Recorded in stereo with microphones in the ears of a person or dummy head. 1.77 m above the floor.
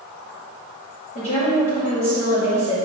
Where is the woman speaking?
35° left (ahead or behind), 2.5 m.